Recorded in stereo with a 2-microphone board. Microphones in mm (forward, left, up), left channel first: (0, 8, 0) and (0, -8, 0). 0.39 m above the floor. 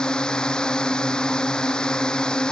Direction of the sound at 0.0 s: 60° left (ahead or behind).